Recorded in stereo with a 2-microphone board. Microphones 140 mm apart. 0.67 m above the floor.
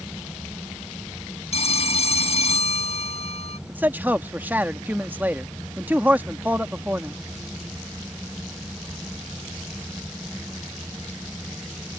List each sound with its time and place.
1.5 s a phone ringing: 50° left (ahead or behind)
3.7 s a man speaking: 15° right (ahead or behind)